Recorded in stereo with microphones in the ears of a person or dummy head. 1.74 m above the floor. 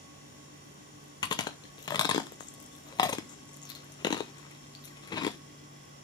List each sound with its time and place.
1.2 s chewing: 25° left (ahead or behind), 0.7 m